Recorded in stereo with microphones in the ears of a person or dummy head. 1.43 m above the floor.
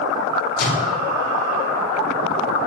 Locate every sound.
0.6 s a microwave: 50° left (ahead or behind), 2.5 m